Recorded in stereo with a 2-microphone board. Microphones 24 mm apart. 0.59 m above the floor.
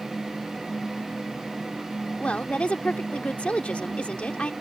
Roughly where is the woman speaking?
Left.